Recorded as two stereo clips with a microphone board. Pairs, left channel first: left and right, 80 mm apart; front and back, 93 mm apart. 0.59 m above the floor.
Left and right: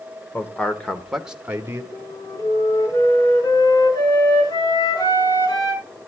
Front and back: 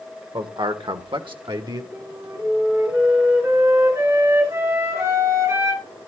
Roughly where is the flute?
Behind left.